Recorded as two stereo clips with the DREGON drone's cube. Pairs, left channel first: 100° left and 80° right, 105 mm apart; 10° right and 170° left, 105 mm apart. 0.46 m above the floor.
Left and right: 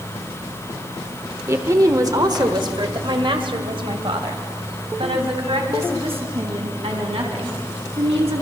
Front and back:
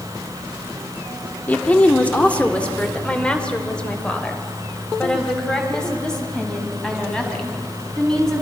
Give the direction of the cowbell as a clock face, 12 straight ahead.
No cowbell in this recording.